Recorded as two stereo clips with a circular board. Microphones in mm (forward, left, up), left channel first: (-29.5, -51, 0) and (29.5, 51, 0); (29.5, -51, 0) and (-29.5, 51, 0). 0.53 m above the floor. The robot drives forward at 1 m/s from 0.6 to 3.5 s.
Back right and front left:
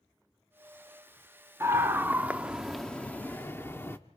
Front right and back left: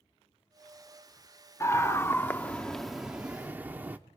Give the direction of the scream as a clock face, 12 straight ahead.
12 o'clock.